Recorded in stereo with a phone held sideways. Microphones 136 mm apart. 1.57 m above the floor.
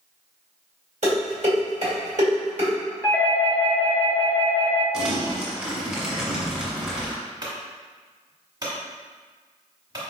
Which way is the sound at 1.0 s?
60° right (ahead or behind).